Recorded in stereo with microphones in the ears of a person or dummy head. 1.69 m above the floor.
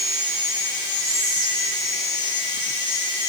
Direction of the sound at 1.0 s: 25° right (ahead or behind).